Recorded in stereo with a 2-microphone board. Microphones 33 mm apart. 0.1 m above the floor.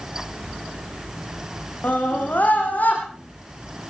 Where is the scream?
65° left (ahead or behind), 5.5 m; by 3.0 s 55° left (ahead or behind), 5 m.